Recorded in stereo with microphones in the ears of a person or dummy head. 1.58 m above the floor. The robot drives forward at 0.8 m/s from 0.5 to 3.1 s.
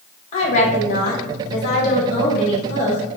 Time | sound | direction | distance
0.3 | a woman speaking | 35° left (ahead or behind) | 1.4 m